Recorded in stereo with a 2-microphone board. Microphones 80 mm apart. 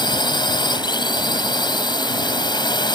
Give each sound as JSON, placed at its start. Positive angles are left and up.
{"t": 0.0, "sound": "a drone", "side_deg": 65}